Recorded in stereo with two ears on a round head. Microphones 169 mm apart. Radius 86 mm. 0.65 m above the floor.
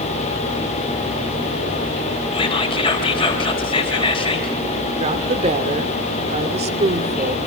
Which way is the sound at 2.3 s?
30° left (ahead or behind).